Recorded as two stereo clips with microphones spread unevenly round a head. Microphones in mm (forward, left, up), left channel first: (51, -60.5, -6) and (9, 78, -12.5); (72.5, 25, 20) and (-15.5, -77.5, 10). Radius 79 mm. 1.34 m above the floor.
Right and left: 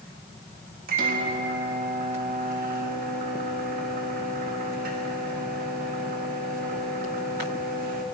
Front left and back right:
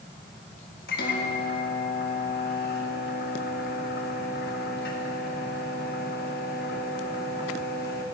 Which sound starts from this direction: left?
A microwave, at 0.9 s.